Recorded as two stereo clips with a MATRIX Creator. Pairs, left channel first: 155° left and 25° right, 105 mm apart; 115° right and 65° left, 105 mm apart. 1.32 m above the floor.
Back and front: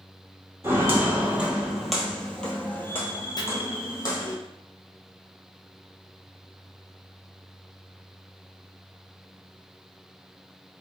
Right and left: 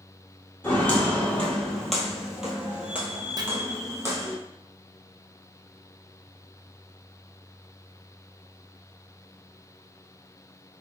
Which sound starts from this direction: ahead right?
Footsteps, at 0.6 s.